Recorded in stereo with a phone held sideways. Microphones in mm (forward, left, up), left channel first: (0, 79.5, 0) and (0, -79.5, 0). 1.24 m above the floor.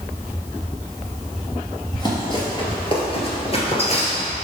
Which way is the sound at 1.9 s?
25° left (ahead or behind).